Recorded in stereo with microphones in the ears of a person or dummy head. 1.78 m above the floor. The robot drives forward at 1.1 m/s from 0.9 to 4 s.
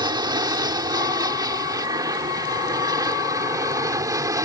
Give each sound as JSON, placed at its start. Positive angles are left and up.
{"t": 0.0, "sound": "an aircraft", "side_deg": -15}